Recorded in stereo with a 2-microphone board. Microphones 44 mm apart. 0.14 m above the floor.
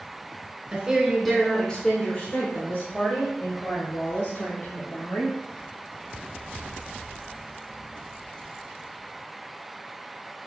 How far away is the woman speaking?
About 1.2 m.